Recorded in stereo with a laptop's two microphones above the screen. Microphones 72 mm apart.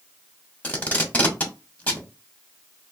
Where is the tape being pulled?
20° left (ahead or behind), 1.0 m.